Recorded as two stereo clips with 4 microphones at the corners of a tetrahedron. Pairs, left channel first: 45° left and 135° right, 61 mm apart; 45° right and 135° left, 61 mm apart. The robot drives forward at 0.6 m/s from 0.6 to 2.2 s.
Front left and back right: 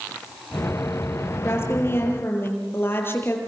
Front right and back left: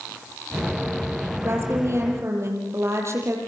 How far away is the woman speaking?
About 6.5 m.